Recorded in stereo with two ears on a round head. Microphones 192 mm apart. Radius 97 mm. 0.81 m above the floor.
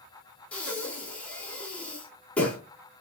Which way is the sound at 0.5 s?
5° left (ahead or behind).